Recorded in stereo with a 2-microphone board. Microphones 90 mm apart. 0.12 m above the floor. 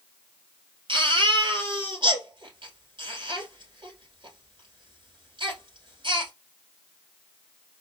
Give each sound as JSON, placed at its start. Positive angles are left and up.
{"t": 0.9, "sound": "a baby crying", "side_deg": -60, "distance_m": 2.5}